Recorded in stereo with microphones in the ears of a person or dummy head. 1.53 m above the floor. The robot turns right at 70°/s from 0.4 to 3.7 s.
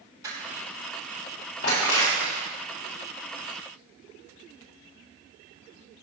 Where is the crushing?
25° right (ahead or behind), 5 m; by 2.5 s 60° left (ahead or behind), 5 m.